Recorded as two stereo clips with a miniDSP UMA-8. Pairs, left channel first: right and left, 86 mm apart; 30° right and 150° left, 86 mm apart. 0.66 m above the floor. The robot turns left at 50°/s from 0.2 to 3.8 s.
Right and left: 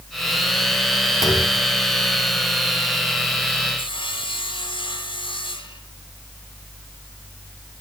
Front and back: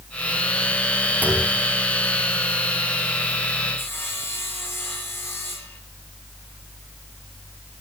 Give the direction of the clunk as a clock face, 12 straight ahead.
5 o'clock.